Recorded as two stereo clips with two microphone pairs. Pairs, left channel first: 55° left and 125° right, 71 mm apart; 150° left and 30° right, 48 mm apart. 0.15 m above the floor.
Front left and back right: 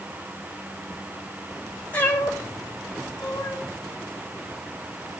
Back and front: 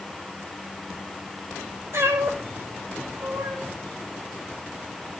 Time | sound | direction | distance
1.9 | a cat meowing | 15° right | 4 m